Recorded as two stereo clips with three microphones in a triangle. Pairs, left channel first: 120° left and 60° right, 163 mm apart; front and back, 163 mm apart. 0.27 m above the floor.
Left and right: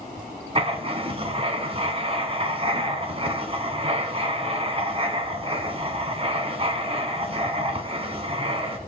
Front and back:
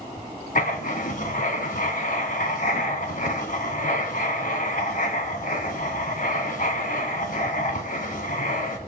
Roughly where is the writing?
Ahead.